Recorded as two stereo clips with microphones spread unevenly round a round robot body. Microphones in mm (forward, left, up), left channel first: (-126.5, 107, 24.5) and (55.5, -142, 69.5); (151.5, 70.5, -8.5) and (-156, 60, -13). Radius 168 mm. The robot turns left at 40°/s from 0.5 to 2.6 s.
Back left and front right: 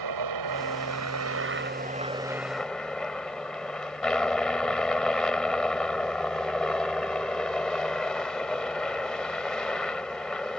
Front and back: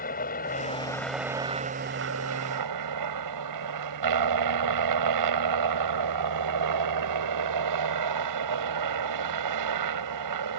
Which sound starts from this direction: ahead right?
A helicopter, at 0.0 s.